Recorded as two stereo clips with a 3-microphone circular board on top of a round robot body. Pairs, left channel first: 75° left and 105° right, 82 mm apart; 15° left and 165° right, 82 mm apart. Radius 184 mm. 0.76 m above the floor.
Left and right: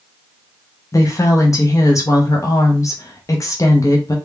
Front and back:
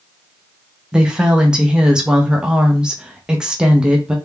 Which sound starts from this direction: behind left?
A woman speaking, at 0.9 s.